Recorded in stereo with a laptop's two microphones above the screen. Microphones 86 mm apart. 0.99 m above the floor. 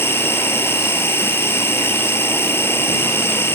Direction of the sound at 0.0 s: 30° left (ahead or behind).